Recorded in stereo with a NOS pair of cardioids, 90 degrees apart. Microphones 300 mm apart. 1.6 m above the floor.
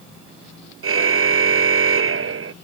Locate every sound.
0.8 s a car horn: 40° right